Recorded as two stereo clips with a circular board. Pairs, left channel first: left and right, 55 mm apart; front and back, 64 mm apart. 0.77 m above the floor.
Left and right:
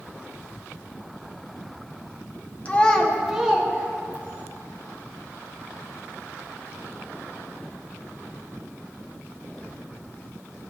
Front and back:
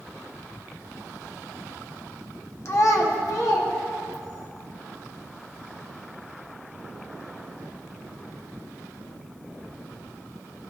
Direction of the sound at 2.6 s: 30° left.